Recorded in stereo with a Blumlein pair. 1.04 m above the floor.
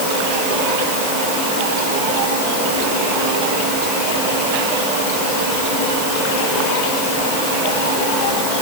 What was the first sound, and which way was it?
Only background noise.